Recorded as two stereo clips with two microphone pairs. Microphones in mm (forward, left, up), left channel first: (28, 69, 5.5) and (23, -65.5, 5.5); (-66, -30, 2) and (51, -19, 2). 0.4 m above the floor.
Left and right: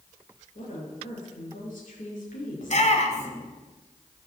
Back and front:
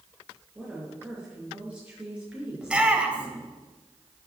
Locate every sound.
0.6 s a woman speaking: 85° left, 6 m
2.6 s a shout: 85° left, 1.9 m